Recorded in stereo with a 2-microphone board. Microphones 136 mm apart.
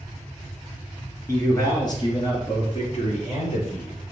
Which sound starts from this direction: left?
A man speaking, at 1.3 s.